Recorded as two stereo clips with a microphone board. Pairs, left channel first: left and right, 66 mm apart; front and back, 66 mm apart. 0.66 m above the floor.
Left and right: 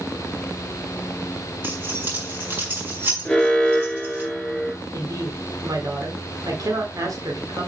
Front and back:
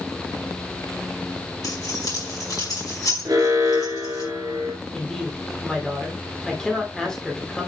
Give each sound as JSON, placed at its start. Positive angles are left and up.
{"t": 1.6, "sound": "keys jangling", "azimuth_deg": -30, "distance_m": 5.0}
{"t": 3.2, "sound": "an alarm", "azimuth_deg": 170, "distance_m": 3.5}
{"t": 4.9, "sound": "a woman speaking", "azimuth_deg": -80, "distance_m": 2.0}